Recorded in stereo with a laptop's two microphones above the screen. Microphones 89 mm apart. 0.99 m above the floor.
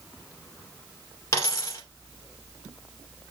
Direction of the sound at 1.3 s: 35° left (ahead or behind).